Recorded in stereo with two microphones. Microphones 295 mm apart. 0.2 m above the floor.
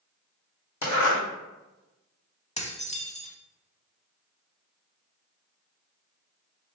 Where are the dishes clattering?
20° left (ahead or behind), 0.7 m.